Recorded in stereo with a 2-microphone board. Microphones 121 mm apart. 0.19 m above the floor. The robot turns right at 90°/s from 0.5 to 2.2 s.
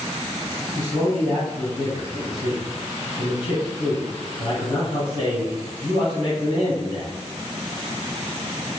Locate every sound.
0.8 s a man speaking: 40° right, 1.5 m; by 7.1 s 90° left, 1.5 m